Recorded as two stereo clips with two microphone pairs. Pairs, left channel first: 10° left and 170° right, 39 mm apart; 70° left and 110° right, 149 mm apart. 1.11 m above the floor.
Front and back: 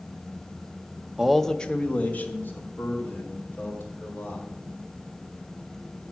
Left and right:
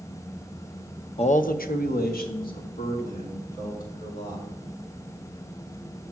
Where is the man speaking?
120° left, 0.6 m; by 4.5 s 45° left, 4 m.